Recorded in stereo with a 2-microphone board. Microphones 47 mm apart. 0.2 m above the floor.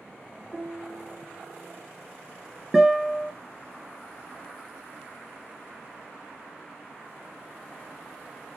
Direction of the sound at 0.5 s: 5° left (ahead or behind).